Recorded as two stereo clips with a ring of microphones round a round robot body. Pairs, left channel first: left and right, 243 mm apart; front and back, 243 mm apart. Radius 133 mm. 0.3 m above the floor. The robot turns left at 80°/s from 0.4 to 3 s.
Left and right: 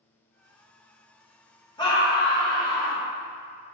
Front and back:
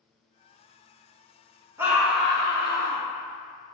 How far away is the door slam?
I don't hear a door slam.